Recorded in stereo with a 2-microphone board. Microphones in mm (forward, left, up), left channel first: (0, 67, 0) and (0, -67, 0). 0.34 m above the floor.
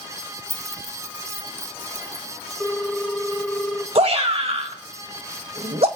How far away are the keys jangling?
About 0.7 m.